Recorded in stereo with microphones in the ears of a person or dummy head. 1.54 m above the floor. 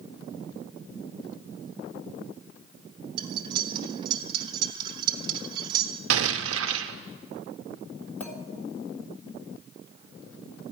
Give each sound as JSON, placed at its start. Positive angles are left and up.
{"t": 3.2, "sound": "cutlery clinking", "side_deg": -30, "distance_m": 1.2}
{"t": 6.1, "sound": "an explosion", "side_deg": -80, "distance_m": 0.8}
{"t": 8.2, "sound": "a clink", "side_deg": 10, "distance_m": 2.0}